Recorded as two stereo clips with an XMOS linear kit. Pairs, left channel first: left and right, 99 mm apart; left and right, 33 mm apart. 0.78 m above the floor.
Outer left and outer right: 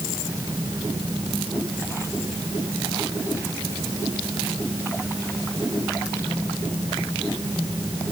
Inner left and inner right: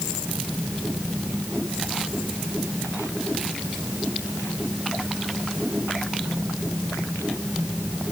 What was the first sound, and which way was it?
Only background noise.